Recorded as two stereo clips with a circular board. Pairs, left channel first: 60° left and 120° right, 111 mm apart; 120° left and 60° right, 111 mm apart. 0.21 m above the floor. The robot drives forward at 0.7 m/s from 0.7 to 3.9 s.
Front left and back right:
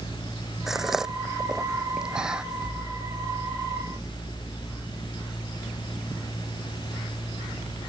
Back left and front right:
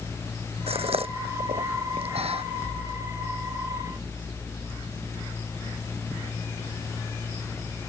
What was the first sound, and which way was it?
A gasp, 35° right.